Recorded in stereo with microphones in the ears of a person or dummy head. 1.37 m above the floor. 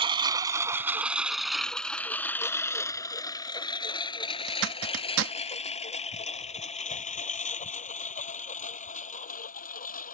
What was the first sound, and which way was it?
A lawn mower, 30° right (ahead or behind).